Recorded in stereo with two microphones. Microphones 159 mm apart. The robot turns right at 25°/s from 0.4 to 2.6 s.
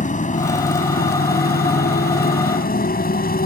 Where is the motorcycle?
55° left; by 3.5 s 110° left.